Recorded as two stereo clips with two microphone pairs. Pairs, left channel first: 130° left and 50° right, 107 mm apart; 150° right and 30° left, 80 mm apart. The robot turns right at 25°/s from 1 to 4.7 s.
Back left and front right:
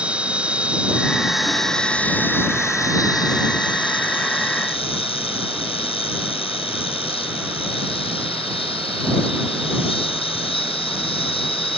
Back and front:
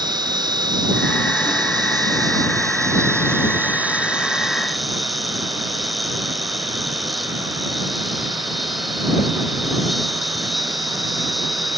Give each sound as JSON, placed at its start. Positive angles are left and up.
{"t": 0.0, "sound": "an insect", "azimuth_deg": 30}